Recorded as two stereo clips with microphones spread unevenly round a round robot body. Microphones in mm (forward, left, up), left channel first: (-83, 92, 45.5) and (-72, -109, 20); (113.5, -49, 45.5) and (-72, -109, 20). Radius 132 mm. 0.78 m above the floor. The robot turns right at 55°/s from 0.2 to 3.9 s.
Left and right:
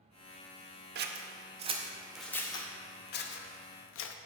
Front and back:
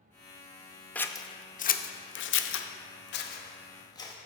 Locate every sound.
0.9 s scissors: 70° right, 0.6 m; by 4.2 s 95° left, 0.6 m